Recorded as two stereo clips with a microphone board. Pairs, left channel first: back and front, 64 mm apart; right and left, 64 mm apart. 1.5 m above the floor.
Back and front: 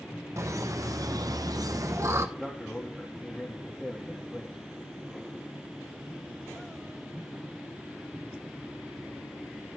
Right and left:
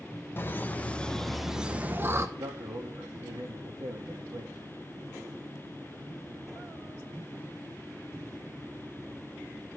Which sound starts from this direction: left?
A man speaking, at 2.4 s.